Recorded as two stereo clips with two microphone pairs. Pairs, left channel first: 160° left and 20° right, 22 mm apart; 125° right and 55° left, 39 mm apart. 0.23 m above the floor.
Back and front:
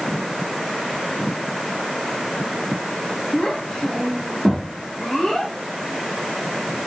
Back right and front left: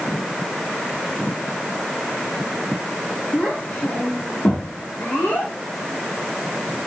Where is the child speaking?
140° right, 4 m; by 5.5 s 125° right, 6 m.